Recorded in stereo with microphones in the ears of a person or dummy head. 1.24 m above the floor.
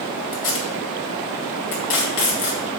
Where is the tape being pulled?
65° left (ahead or behind), 2 m.